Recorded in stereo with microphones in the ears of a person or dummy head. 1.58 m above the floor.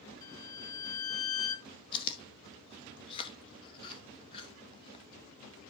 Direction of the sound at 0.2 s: 25° left (ahead or behind).